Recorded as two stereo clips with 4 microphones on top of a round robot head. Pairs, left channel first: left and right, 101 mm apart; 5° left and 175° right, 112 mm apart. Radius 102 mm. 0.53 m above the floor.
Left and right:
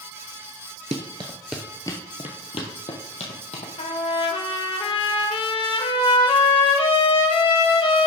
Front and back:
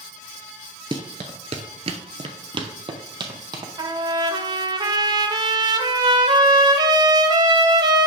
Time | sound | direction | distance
0.9 | running footsteps | 120° right | 0.6 m
3.8 | a trumpet | 130° left | 1.1 m